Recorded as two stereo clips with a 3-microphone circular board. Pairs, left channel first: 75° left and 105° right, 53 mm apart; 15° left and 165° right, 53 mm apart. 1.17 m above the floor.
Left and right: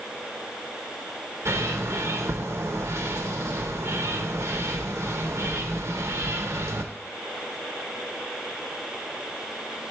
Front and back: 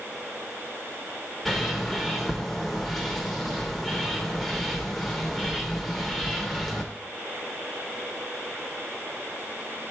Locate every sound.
1.4 s a bird: 75° right, 0.7 m